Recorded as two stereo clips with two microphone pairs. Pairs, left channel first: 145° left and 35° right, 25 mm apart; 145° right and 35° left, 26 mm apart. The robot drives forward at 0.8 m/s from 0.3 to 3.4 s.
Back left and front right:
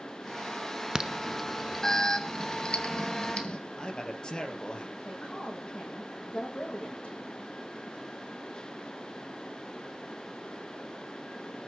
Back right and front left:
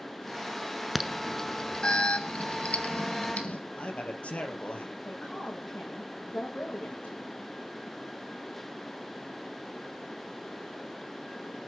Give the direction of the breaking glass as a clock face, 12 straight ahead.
I don't hear breaking glass.